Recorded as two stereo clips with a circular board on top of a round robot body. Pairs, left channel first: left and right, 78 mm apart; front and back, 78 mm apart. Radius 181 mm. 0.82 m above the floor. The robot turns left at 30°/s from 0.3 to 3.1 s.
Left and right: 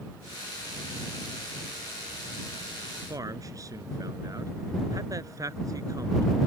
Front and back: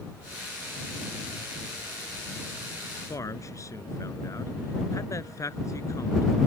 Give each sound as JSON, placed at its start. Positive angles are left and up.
{"t": 3.1, "sound": "a man speaking", "azimuth_deg": -45}